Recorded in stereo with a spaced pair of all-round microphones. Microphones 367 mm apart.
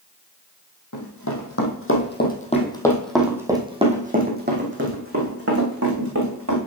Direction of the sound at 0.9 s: 50° left (ahead or behind).